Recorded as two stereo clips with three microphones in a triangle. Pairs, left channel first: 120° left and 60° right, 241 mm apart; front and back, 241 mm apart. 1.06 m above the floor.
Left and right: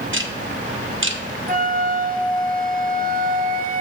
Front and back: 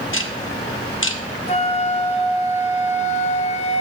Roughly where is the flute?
Ahead right.